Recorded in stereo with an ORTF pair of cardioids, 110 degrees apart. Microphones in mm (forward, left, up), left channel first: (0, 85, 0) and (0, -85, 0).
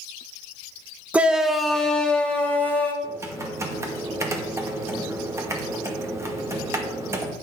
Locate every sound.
1.1 s a shout: 10° right, 0.9 m; by 2.9 s 10° left, 2 m
3.0 s typing on a keyboard: 15° right, 2.0 m